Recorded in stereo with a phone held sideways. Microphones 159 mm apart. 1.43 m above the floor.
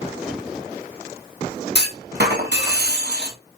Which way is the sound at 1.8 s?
85° right.